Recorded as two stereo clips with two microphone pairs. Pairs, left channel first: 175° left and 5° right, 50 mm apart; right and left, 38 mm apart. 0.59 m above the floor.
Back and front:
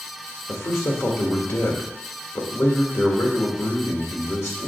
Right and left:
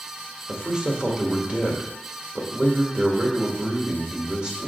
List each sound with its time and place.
0.5 s a man speaking: 155° left, 1.6 m